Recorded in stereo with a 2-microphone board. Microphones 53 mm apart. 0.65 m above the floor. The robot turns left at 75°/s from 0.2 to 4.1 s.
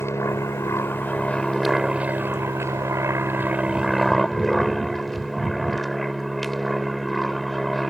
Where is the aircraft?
110° left; by 7.9 s 175° left.